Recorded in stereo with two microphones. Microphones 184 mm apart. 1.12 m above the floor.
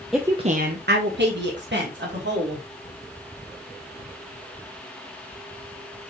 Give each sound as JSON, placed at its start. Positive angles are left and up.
{"t": 0.1, "sound": "a woman speaking", "side_deg": 0, "distance_m": 0.6}